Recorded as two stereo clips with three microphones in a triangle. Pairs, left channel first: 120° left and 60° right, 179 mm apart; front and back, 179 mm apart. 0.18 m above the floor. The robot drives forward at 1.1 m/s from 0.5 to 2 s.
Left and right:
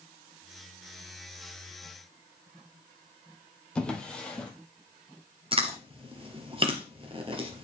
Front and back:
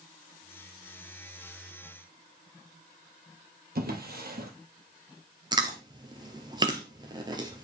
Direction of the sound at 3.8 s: 155° right.